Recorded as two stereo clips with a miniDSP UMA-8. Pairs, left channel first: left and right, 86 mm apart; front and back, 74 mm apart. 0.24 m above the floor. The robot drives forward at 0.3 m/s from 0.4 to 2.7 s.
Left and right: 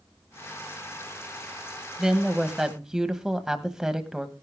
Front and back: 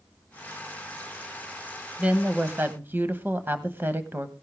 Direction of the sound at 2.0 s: 160° right.